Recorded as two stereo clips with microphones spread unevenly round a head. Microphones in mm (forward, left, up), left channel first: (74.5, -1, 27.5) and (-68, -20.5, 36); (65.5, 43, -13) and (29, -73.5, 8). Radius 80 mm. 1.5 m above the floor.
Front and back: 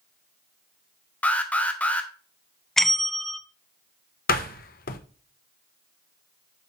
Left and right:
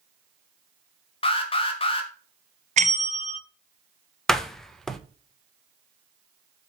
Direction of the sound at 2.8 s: 80° right.